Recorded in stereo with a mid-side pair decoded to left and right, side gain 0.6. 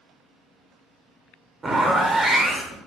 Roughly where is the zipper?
Ahead.